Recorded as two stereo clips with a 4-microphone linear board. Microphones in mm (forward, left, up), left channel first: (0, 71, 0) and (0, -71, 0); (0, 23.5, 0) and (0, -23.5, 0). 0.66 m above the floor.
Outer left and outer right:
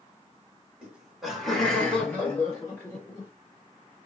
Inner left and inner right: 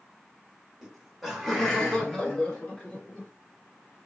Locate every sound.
0.8 s laughter: 10° right (ahead or behind), 1.3 m; by 3.3 s 25° left (ahead or behind), 1.5 m